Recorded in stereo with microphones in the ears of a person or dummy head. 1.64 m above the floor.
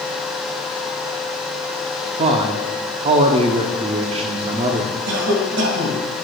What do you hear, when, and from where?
2.2 s a man speaking: 35° right (ahead or behind), 0.6 m
5.1 s a cough: 70° right (ahead or behind), 1.9 m